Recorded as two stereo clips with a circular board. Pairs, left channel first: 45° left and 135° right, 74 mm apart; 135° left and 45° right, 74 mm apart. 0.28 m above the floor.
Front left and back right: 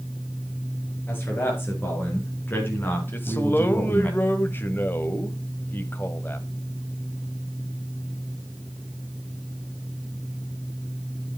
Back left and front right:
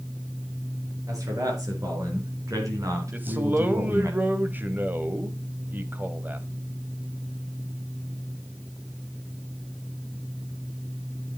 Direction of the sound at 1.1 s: 15° right.